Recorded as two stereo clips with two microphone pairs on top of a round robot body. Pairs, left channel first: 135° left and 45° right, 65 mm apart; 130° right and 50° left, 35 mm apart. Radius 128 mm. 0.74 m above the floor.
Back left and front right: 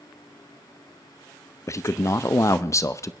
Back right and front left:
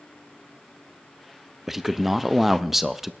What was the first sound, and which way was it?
A man speaking, 135° left.